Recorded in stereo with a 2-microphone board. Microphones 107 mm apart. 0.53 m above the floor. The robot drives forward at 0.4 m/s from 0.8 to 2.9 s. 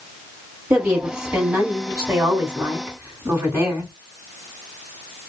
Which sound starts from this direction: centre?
A woman speaking, at 0.7 s.